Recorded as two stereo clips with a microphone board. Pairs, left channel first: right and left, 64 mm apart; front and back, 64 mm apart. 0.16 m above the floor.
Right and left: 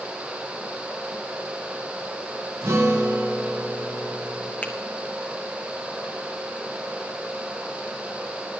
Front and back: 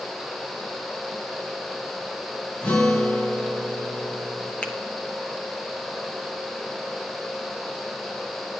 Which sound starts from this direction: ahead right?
A finger snap, at 4.6 s.